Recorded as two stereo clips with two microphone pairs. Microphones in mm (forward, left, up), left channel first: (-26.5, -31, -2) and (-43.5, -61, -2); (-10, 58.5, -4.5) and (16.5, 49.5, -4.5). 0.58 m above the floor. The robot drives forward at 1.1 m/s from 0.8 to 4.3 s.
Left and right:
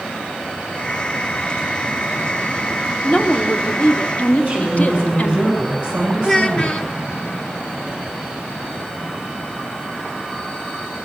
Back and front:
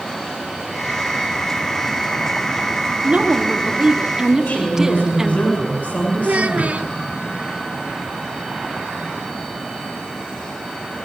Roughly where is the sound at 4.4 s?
Behind.